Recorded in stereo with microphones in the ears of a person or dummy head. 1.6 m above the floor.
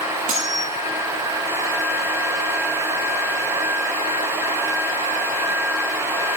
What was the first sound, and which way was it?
Cutlery clinking, 35° right (ahead or behind).